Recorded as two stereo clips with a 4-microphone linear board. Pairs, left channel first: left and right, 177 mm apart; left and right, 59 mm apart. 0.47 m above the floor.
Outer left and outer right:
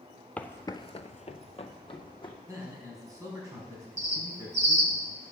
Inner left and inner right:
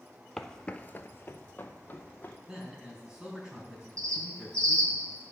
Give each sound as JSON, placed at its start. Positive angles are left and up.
{"t": 0.4, "sound": "footsteps", "side_deg": 10, "distance_m": 0.7}
{"t": 2.5, "sound": "a man speaking", "side_deg": -20, "distance_m": 4.5}
{"t": 4.0, "sound": "a bird", "side_deg": -75, "distance_m": 1.5}